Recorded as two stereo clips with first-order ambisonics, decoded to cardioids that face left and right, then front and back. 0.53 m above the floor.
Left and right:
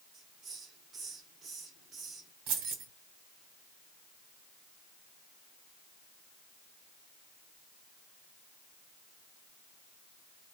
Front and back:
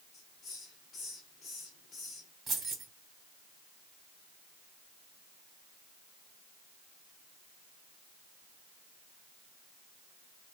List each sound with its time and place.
0.1 s a hiss: 45° right, 1.7 m
2.5 s keys jangling: 105° right, 2 m